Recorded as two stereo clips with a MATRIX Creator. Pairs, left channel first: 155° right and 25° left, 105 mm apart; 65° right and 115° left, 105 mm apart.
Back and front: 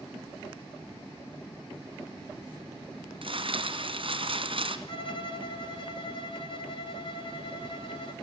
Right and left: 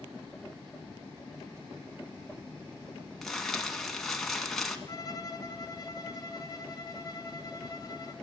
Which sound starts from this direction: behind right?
A violin, at 4.9 s.